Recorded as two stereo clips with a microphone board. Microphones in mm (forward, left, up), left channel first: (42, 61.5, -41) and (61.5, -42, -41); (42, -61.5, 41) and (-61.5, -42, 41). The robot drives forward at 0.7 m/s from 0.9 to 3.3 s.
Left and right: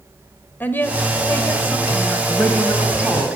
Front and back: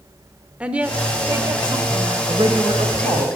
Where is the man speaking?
170° right, 1.6 m; by 3.3 s 175° right, 2 m.